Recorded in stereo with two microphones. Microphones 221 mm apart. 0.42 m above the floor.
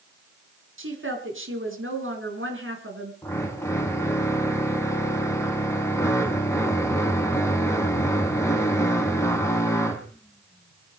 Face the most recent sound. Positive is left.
turn(degrees=15)  # may be behind; listen again after turning